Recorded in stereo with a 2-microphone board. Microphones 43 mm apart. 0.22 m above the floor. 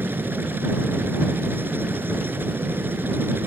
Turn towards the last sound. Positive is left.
turn(degrees=-55)  # may be behind; listen again after turning